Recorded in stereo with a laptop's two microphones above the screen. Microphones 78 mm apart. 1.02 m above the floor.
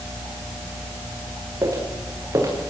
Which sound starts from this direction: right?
Footsteps, at 1.6 s.